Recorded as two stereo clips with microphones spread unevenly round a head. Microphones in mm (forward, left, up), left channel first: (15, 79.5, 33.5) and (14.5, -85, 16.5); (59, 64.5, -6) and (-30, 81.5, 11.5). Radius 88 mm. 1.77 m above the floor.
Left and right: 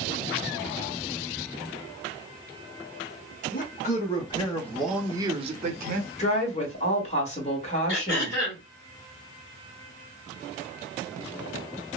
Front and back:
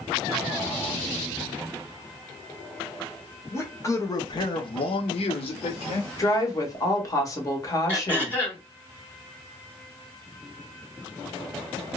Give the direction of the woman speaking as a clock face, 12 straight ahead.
11 o'clock.